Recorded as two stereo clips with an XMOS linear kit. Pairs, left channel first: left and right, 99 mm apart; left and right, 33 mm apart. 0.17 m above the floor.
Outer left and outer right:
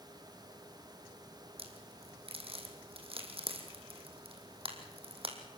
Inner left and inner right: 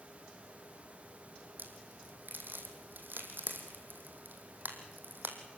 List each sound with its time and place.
1.6 s a crack: 65° right (ahead or behind), 2.5 m